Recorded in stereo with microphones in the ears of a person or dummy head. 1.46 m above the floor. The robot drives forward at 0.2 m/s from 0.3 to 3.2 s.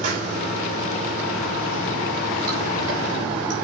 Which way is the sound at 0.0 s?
40° right (ahead or behind).